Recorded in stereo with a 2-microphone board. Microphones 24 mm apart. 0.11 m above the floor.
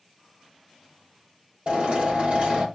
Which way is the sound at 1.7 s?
60° right (ahead or behind).